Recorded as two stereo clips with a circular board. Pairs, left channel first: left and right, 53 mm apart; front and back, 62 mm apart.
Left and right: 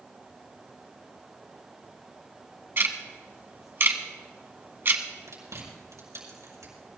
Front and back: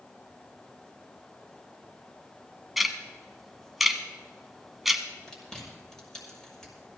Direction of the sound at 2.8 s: 95° right.